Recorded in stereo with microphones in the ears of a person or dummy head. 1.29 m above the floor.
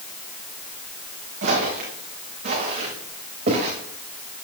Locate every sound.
1.4 s footsteps: 55° right (ahead or behind), 5.5 m; by 3.7 s 45° right (ahead or behind), 6.5 m